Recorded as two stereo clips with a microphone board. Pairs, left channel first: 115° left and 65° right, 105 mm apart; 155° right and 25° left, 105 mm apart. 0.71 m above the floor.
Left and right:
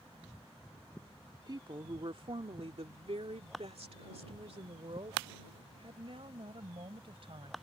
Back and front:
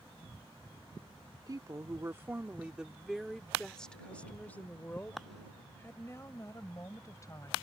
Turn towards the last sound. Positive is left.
turn(degrees=-100)